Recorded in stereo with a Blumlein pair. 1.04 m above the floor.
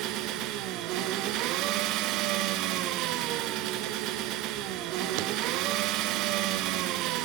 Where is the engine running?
40° right, 1.0 m.